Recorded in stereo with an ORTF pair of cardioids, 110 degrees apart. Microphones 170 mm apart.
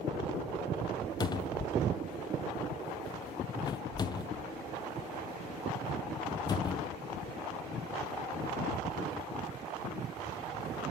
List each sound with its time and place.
1.2 s a cupboard door: 25° left, 0.7 m